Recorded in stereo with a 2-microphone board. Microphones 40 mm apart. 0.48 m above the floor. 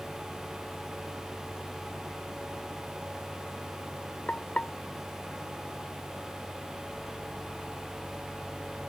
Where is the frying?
35° left (ahead or behind).